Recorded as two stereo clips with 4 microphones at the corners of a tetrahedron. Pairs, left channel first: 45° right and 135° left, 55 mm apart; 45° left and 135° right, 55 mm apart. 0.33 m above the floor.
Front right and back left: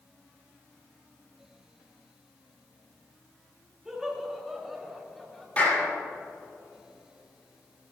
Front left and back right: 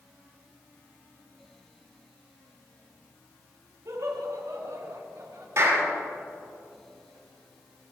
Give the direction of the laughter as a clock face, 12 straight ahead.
5 o'clock.